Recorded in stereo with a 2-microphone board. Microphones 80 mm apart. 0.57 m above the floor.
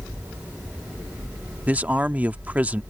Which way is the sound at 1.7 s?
20° right (ahead or behind).